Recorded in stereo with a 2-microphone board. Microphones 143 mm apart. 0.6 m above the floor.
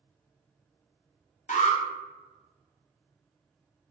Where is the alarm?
60° left (ahead or behind), 0.5 m.